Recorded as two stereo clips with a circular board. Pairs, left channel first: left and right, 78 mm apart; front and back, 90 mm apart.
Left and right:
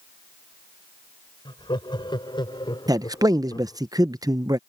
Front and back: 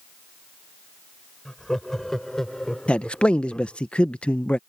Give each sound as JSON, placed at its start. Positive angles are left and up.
{"t": 1.4, "sound": "laughter", "azimuth_deg": 85}
{"t": 2.9, "sound": "a man speaking", "azimuth_deg": -75}